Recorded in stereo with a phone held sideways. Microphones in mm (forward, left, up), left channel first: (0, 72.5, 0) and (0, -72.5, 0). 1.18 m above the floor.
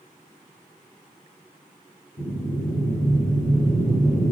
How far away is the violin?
No violin in this recording.